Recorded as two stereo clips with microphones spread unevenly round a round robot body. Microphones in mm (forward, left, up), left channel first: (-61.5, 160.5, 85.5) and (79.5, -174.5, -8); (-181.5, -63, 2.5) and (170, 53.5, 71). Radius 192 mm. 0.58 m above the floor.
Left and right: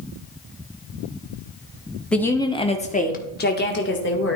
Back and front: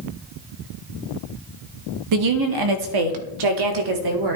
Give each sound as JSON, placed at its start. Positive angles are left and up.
{"t": 2.1, "sound": "a woman speaking", "azimuth_deg": 5, "distance_m": 1.0}